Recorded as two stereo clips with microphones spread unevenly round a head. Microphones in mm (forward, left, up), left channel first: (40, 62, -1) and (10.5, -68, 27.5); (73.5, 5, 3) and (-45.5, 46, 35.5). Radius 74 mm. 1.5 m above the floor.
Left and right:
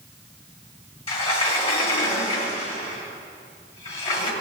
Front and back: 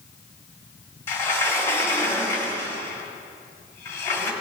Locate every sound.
1.1 s a sliding door: 65° left, 1.4 m